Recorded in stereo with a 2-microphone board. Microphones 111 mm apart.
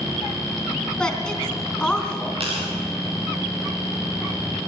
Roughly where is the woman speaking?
Centre.